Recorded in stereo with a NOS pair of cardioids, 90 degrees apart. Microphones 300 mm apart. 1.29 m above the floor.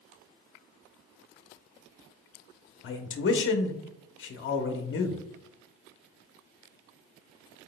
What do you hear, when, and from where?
2.8 s a man speaking: 40° left, 0.8 m